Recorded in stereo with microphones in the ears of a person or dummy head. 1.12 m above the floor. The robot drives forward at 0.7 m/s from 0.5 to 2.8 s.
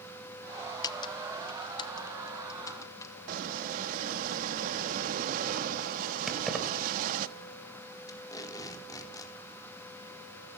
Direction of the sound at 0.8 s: 20° left (ahead or behind).